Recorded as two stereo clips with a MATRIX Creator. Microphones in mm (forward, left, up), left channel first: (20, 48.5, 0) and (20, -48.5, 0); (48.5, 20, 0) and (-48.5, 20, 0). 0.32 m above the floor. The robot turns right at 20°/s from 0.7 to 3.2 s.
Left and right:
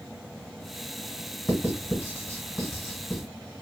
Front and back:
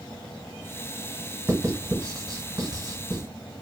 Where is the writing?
135° left, 1.1 m; by 3.2 s 170° left, 1.1 m.